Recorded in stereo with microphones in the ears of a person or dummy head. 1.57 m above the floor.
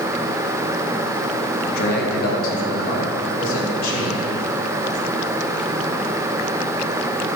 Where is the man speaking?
60° left (ahead or behind), 1.8 m; by 4.3 s 55° left (ahead or behind), 4 m.